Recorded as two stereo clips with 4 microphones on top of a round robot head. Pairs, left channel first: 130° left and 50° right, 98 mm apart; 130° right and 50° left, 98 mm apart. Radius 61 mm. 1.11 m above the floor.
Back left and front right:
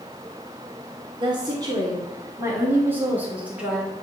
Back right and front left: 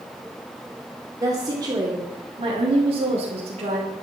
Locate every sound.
1.2 s a woman speaking: 5° right, 3 m; by 3.9 s 35° left, 3.5 m